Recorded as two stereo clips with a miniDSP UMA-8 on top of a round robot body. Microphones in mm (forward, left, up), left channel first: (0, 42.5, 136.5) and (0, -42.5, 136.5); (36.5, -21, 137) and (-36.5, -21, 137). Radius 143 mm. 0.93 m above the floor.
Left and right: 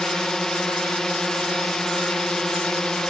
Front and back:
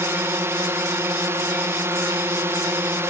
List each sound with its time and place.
0.0 s a drone: 170° left